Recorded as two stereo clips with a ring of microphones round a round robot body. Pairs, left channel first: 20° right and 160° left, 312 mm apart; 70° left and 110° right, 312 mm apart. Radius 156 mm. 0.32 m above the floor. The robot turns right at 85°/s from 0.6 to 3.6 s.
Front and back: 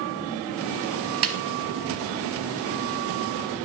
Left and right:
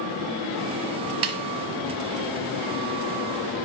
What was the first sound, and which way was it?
A snare drum, 160° right.